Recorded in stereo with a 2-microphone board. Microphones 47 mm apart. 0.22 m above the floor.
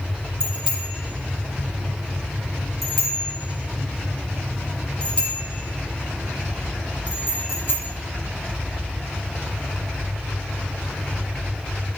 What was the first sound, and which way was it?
A bicycle bell, 20° right (ahead or behind).